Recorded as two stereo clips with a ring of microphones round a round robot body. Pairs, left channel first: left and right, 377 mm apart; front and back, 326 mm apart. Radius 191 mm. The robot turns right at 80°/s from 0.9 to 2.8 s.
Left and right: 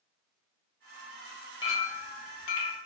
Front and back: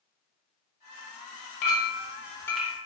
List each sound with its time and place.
1.6 s a clink: 10° left, 0.9 m; by 2.8 s 105° left, 0.9 m